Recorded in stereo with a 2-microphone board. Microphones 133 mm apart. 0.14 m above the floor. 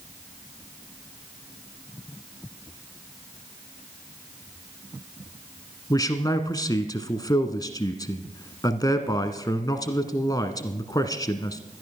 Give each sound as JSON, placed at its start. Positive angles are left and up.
{"t": 5.9, "sound": "a man speaking", "side_deg": 30, "distance_m": 1.3}